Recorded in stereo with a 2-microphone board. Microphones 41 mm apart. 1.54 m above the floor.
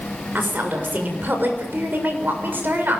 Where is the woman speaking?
55° right (ahead or behind), 7 m.